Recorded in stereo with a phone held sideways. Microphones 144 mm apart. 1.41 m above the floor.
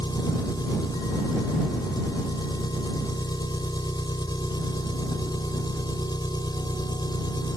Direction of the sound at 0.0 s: 30° left (ahead or behind).